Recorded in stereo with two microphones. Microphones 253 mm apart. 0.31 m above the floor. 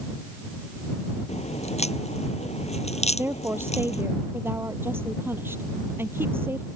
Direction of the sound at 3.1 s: 10° right (ahead or behind).